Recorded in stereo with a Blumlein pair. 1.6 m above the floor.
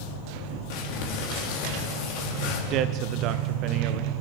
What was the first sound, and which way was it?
Crumpling, 45° left.